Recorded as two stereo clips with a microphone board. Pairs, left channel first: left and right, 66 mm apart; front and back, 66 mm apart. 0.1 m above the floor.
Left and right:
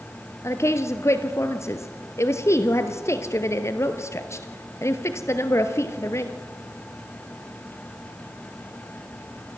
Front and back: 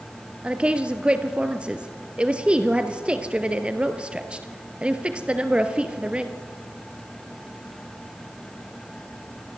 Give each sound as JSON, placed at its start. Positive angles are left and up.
{"t": 0.4, "sound": "a woman speaking", "azimuth_deg": 110, "distance_m": 1.8}